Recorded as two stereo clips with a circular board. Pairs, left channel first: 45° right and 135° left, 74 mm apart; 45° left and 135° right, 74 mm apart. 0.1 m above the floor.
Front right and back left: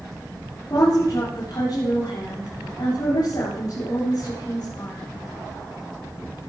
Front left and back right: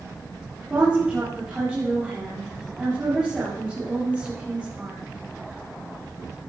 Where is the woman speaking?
60° right, 8 m.